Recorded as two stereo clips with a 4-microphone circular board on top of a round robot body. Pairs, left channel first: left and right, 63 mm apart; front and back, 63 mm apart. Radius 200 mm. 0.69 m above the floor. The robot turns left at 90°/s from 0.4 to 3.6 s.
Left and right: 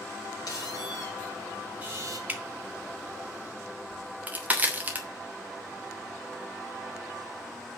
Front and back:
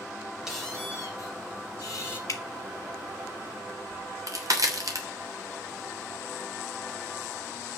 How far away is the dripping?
About 2.5 m.